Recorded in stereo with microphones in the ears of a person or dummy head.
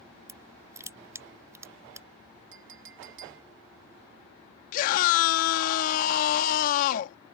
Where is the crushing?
15° right (ahead or behind).